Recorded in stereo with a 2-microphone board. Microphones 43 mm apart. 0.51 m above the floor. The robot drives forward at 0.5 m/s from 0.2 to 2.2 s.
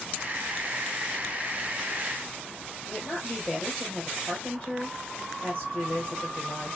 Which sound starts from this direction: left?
A woman speaking, at 2.9 s.